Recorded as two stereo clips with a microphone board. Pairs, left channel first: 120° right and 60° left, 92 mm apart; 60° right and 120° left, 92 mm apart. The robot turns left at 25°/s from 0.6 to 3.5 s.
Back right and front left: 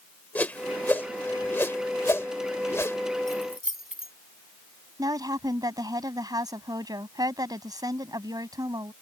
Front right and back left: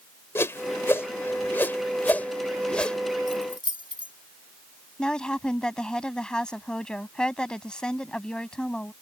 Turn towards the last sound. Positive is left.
turn(degrees=20)